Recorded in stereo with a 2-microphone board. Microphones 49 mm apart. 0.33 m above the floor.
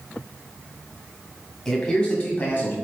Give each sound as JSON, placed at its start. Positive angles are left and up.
{"t": 1.6, "sound": "a man speaking", "side_deg": 10, "distance_m": 2.0}